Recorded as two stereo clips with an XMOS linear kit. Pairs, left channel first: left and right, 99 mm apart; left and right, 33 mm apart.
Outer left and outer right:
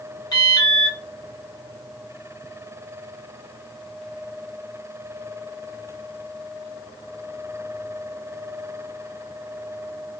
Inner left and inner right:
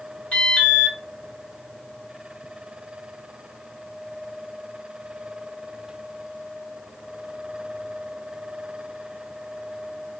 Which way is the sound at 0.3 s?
40° left (ahead or behind).